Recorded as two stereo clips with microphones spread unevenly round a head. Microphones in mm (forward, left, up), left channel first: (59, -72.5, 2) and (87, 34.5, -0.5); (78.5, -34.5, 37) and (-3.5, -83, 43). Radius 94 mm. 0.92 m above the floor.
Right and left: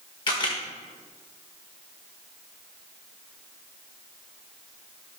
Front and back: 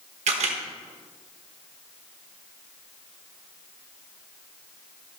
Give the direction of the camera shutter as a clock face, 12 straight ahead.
6 o'clock.